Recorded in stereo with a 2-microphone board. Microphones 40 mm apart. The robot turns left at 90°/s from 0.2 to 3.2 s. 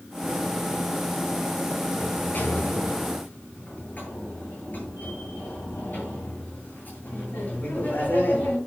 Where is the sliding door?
155° left, 9.5 m; by 8.6 s 45° left, 9.5 m.